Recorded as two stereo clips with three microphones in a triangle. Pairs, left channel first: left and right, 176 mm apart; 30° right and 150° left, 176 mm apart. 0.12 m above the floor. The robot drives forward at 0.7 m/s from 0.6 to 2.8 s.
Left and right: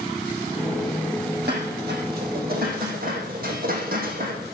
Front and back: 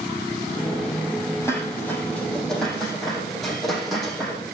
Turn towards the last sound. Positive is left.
turn(degrees=-120)